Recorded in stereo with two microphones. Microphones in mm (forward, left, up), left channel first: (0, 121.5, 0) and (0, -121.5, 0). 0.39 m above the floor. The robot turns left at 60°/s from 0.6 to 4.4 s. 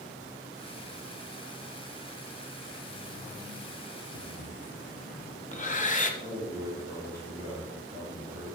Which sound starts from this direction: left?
Breathing, at 4.1 s.